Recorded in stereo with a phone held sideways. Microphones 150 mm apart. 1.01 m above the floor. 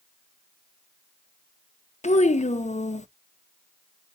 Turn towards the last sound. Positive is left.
turn(degrees=50)  # may be behind; listen again after turning